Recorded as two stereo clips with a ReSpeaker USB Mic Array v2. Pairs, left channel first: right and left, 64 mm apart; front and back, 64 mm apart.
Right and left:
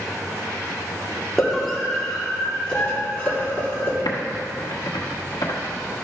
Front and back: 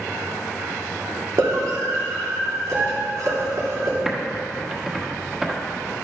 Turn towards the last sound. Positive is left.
turn(degrees=-100)